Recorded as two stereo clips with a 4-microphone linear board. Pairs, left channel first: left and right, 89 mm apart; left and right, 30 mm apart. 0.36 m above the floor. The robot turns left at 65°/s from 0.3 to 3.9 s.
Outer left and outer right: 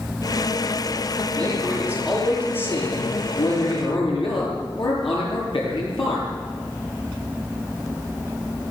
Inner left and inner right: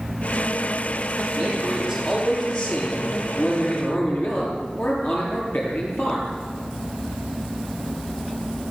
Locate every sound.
1.4 s a man speaking: 125° right, 10 m; by 6.3 s 70° left, 10 m